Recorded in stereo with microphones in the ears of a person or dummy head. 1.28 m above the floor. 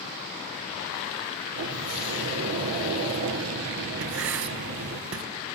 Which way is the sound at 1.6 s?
80° right.